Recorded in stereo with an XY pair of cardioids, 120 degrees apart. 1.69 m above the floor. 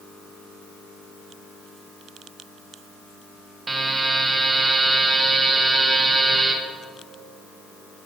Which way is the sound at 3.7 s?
20° right.